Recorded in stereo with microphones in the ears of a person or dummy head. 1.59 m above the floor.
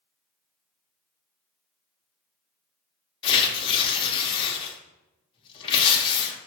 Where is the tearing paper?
30° left (ahead or behind), 0.7 m.